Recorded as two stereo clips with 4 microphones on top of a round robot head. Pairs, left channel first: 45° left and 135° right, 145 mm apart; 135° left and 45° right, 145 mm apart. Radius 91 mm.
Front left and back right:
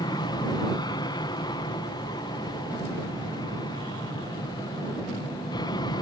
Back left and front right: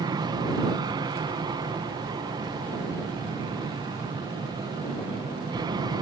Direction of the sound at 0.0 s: Straight ahead.